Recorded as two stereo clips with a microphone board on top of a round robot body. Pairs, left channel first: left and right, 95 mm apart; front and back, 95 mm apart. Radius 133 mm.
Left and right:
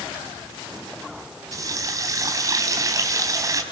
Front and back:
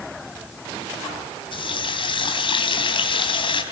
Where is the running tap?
35° right, 4 m.